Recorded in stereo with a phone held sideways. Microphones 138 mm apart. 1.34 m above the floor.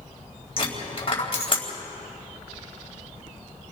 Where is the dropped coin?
45° left (ahead or behind), 3.5 m.